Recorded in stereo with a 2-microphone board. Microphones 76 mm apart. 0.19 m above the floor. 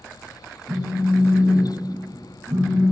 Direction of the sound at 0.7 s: 60° right (ahead or behind).